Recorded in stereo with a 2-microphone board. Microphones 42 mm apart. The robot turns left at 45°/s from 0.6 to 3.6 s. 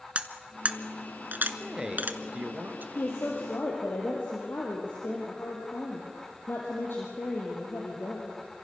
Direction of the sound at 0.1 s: 30° right (ahead or behind).